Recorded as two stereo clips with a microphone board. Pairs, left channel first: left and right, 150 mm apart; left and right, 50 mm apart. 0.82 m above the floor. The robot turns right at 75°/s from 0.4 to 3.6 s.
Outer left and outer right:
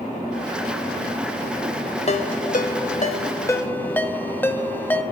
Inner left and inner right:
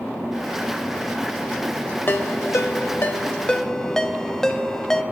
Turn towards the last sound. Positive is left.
turn(degrees=10)  # may be behind; listen again after turning